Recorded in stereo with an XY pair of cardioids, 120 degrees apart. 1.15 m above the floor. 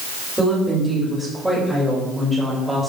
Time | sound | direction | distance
0.4 | a woman speaking | 15° right | 5 m